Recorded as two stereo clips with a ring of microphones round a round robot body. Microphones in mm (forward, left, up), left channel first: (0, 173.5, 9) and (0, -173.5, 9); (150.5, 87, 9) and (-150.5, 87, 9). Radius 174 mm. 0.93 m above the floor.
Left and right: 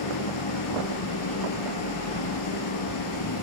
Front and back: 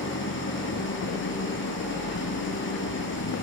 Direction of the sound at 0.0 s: 50° left.